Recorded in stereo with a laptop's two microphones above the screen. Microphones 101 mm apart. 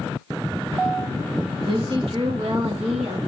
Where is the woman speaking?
45° right (ahead or behind), 1.1 m; by 3.2 s 80° right, 1.3 m.